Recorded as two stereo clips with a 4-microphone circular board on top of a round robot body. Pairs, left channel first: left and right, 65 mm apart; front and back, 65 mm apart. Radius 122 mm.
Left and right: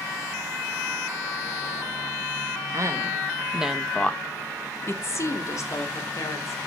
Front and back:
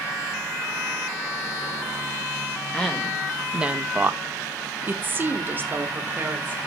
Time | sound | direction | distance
2.7 | a woman speaking | 80° right | 1.6 m